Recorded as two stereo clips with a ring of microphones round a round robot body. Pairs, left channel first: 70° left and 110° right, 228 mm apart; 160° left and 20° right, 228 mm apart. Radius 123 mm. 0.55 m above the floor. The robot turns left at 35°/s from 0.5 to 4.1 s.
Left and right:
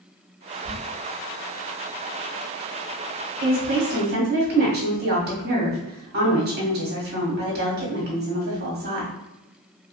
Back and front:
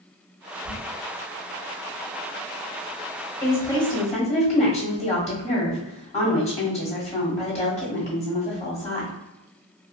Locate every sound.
0.7 s a squeak: 140° right, 1.4 m; by 0.8 s 145° right, 1.4 m
3.4 s a woman speaking: 120° right, 1.4 m; by 9.1 s 145° right, 1.4 m